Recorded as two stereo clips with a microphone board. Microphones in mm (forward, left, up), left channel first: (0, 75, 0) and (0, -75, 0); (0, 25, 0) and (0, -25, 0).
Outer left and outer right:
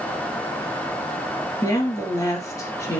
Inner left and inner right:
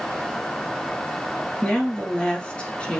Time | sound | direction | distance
1.6 | a woman speaking | 20° left (ahead or behind) | 3 m